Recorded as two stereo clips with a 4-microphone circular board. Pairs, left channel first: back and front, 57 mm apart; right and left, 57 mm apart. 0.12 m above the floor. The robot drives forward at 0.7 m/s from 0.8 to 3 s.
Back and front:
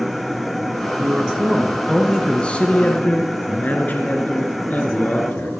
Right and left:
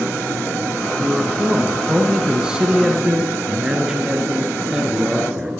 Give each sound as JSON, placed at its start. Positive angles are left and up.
{"t": 1.0, "sound": "a man speaking", "azimuth_deg": 35, "distance_m": 1.4}